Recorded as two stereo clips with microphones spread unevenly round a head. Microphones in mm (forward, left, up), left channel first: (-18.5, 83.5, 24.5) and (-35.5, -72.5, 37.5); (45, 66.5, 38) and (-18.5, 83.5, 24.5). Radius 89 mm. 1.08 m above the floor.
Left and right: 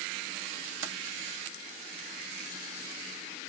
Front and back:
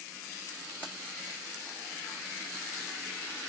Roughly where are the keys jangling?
Right.